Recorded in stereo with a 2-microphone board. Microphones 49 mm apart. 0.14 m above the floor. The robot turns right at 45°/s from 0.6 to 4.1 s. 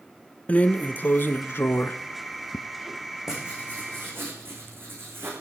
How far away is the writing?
About 5.5 m.